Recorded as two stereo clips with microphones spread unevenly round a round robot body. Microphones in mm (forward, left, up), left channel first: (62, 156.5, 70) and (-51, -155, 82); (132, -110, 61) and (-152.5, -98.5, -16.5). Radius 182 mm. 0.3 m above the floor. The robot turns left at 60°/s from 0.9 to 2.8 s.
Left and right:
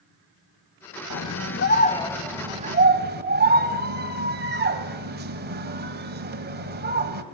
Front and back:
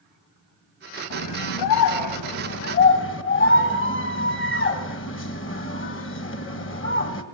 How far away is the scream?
About 1.9 m.